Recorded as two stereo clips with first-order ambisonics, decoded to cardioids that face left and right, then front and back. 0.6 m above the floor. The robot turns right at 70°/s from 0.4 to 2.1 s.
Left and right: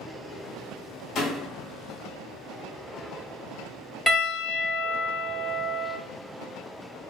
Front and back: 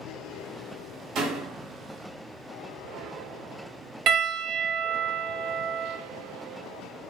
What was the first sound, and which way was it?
A door slam, 140° left.